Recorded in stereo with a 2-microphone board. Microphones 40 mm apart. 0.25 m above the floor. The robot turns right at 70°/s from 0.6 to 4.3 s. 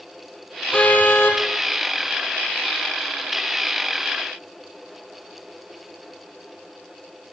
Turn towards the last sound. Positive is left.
turn(degrees=-85)